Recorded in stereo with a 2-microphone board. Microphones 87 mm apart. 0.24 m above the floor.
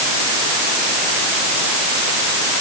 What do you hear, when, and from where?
Only background noise.